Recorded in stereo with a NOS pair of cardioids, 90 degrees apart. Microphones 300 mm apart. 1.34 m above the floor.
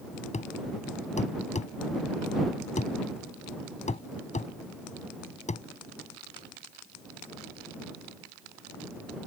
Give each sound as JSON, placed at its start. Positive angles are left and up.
{"t": 0.3, "sound": "a thud", "azimuth_deg": 25}